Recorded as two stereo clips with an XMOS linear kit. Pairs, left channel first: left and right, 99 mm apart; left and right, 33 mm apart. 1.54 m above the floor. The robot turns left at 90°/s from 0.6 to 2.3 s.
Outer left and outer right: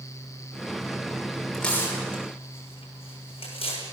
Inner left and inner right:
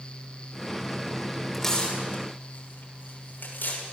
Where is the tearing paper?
Centre (ahead or behind), 6.5 m; by 3.8 s 70° left (ahead or behind), 6.5 m.